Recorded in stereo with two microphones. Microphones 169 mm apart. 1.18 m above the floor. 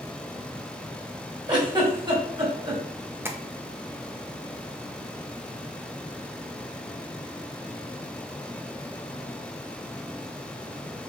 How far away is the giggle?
About 2.5 m.